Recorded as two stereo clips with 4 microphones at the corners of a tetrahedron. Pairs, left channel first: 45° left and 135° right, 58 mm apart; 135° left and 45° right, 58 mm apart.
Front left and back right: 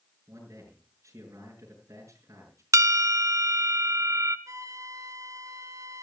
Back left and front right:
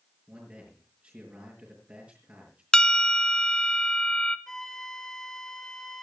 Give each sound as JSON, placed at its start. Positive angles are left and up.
{"t": 0.3, "sound": "a man speaking", "azimuth_deg": -105, "distance_m": 5.5}
{"t": 2.7, "sound": "a bell", "azimuth_deg": -150, "distance_m": 0.8}
{"t": 4.5, "sound": "a flute", "azimuth_deg": -145, "distance_m": 1.1}